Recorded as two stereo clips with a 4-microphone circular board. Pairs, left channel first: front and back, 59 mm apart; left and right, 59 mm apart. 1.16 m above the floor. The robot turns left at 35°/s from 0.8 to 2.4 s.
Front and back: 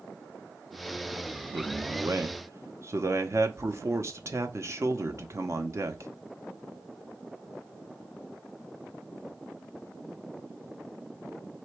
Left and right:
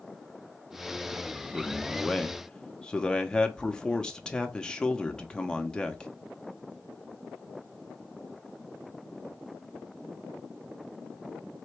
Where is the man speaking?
170° right, 0.8 m; by 6.1 s 160° left, 0.8 m.